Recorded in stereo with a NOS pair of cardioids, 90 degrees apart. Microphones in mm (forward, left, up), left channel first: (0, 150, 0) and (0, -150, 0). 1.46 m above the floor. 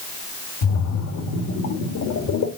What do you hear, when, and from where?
0.6 s a splash: 70° left, 2 m